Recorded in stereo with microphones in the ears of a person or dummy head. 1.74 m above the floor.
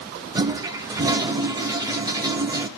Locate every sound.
0.3 s a toilet flushing: 15° right (ahead or behind), 0.8 m